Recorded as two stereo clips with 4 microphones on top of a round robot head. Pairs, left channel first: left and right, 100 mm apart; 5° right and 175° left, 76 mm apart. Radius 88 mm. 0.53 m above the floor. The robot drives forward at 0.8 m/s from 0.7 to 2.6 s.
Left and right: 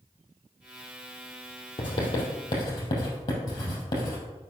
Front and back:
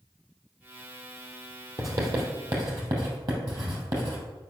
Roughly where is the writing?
Behind left.